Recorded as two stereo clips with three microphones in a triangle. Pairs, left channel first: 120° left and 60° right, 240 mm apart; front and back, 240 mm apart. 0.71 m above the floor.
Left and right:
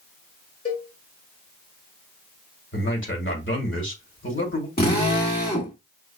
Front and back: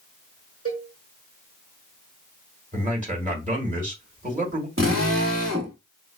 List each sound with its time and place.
0.7 s a cowbell: 160° left, 2 m
2.7 s a man speaking: 130° left, 1.9 m
4.8 s a drill: 165° left, 1.7 m